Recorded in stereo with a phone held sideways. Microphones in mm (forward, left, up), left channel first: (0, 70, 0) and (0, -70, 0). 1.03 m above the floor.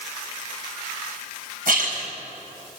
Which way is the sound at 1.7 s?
80° right.